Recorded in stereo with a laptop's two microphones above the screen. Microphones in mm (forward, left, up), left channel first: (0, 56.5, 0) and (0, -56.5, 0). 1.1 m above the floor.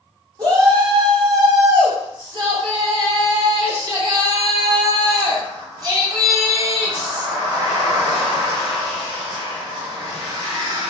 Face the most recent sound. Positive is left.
turn(degrees=-35)  # may be behind; listen again after turning